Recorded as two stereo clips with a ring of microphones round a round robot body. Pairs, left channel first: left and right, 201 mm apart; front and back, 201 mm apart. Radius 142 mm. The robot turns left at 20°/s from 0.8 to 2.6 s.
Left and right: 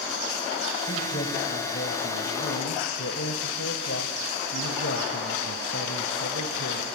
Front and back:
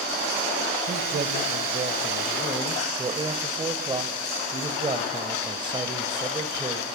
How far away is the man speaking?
About 2 m.